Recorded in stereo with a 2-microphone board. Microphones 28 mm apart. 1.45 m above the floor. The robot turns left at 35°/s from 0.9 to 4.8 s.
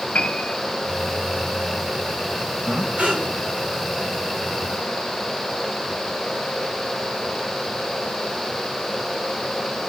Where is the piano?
80° left, 2 m.